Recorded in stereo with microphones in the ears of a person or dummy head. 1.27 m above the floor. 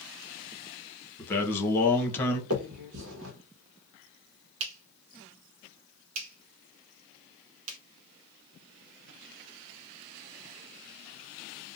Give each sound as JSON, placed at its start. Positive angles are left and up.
{"t": 1.2, "sound": "a man speaking", "side_deg": 10, "distance_m": 1.0}
{"t": 2.5, "sound": "a finger snap", "side_deg": -70, "distance_m": 1.0}